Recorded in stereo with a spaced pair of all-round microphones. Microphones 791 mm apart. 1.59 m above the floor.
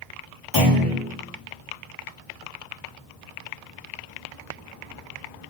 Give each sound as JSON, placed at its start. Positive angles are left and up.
{"t": 0.5, "sound": "a clunk", "side_deg": 80, "distance_m": 1.8}